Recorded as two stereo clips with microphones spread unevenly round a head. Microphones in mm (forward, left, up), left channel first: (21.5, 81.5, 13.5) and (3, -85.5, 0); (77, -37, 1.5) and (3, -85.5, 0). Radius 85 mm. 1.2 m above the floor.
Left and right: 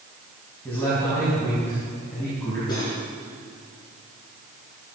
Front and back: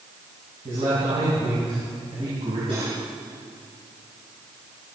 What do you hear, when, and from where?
0.7 s a man speaking: 165° left, 7.5 m
2.7 s cutlery clinking: 150° left, 8 m